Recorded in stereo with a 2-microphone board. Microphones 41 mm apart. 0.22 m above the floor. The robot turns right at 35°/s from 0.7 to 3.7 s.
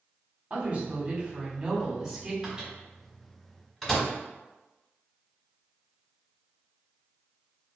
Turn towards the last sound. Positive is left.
turn(degrees=5)  # may be behind; listen again after turning